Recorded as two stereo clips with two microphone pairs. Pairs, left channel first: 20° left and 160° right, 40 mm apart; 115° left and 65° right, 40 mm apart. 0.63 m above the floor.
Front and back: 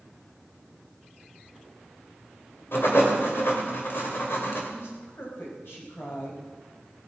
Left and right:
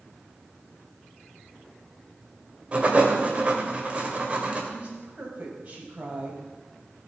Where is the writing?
5° right, 2.5 m.